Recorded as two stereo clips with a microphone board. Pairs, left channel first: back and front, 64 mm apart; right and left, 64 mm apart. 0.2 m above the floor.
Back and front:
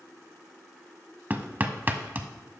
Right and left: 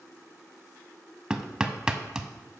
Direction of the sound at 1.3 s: 25° left.